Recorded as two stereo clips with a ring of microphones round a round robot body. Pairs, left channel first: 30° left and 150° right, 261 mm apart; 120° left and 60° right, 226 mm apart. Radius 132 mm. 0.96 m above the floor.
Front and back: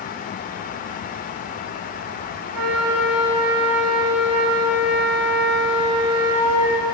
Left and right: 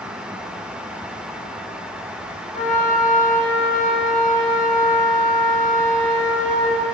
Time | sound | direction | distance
2.5 | a flute | 175° right | 5.5 m